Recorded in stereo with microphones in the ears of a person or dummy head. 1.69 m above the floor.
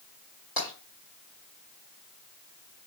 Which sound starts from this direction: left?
Tapping, at 0.6 s.